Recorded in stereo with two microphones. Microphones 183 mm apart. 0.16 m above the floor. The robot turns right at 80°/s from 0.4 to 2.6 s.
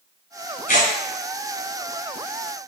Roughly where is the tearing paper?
Left.